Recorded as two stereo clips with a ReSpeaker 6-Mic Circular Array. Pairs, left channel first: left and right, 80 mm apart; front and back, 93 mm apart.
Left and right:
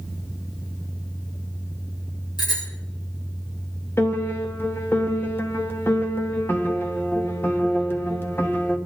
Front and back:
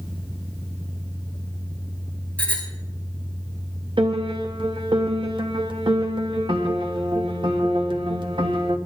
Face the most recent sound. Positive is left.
turn(degrees=150)